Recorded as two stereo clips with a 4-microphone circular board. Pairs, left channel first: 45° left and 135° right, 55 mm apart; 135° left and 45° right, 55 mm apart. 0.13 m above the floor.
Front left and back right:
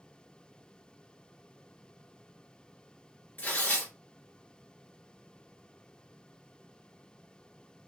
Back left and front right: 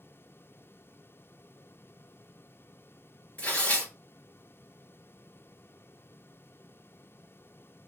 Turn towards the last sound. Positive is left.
turn(degrees=85)